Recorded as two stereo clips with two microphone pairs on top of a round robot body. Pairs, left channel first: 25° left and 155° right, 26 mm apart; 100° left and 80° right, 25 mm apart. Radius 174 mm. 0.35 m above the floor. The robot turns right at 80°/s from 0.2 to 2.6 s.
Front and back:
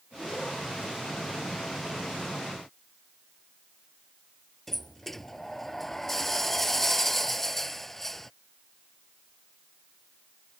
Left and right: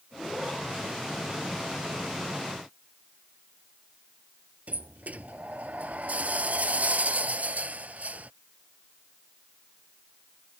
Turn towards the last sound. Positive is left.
turn(degrees=-60)